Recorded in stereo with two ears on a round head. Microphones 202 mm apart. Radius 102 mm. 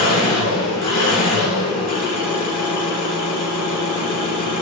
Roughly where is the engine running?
Left.